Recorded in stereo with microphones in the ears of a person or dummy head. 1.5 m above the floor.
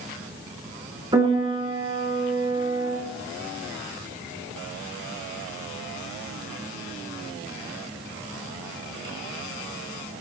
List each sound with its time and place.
1.1 s a piano: 15° right (ahead or behind), 8.5 m